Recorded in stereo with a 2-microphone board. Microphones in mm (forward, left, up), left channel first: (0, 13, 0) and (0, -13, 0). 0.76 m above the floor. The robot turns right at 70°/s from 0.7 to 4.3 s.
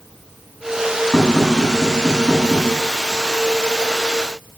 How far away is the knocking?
About 8 m.